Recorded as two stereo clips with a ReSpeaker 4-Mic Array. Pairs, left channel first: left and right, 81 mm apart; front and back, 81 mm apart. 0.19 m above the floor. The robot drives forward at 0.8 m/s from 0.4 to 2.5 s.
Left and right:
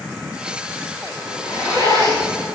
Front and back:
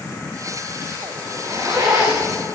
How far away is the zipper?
About 9.5 m.